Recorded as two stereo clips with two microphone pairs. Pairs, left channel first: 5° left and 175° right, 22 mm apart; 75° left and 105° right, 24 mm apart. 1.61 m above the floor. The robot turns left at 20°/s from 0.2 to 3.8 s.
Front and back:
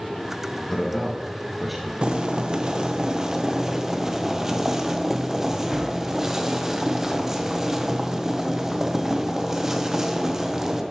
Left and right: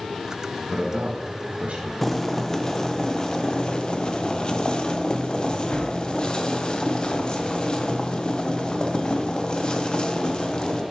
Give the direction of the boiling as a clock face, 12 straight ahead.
7 o'clock.